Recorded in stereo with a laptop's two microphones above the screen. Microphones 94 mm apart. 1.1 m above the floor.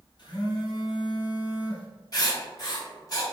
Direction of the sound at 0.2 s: 50° left (ahead or behind).